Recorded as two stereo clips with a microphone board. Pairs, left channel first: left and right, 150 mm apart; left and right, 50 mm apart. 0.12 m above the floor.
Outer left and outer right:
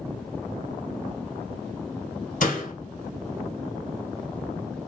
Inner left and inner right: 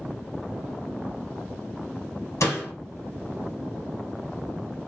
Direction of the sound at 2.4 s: 65° left (ahead or behind).